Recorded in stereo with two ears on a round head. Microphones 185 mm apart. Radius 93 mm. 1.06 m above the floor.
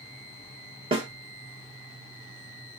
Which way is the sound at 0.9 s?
25° right (ahead or behind).